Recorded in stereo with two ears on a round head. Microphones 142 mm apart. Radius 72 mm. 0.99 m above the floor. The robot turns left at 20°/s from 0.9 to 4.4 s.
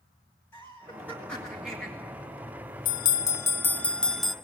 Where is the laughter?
15° left (ahead or behind), 1.8 m; by 1.9 s 5° right (ahead or behind), 1.8 m.